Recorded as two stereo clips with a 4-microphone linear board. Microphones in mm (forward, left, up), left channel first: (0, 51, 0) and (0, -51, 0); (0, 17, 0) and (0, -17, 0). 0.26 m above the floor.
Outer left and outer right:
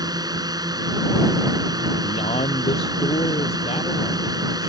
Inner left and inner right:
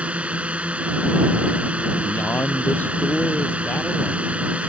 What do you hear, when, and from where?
0.0 s a drone: 40° right (ahead or behind)
2.0 s a man speaking: 80° left